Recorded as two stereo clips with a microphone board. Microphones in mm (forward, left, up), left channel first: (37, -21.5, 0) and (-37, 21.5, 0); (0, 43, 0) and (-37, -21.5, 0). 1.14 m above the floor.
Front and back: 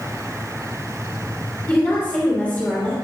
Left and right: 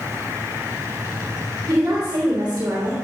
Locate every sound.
1.7 s a woman speaking: 100° right, 3 m